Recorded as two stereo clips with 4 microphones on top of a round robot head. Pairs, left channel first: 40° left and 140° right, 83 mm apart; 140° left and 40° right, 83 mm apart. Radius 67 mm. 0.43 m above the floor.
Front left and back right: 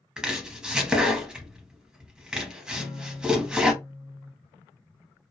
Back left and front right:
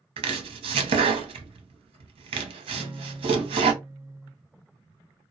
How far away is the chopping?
About 0.6 m.